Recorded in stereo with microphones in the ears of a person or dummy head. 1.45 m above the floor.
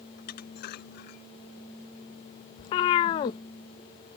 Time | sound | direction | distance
0.2 | dishes clattering | 55° left (ahead or behind) | ?
2.6 | a cat meowing | 20° left (ahead or behind) | ?